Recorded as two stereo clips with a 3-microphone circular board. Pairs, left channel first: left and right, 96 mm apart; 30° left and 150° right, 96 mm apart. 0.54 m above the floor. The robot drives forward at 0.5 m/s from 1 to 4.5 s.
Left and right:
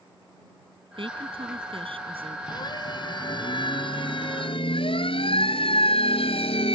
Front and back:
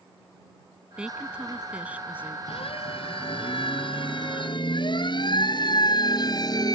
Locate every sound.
1.0 s a woman speaking: 70° right; by 2.4 s 75° right
2.5 s a siren: 50° left; by 6.8 s 75° left